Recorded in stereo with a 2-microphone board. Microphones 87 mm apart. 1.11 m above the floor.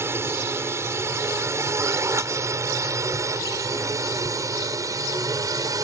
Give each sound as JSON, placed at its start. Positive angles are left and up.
{"t": 0.0, "sound": "a drone", "side_deg": -30}